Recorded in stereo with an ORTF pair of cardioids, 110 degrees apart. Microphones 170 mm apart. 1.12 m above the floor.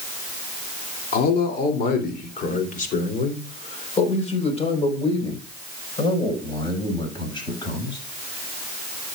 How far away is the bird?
No bird in this recording.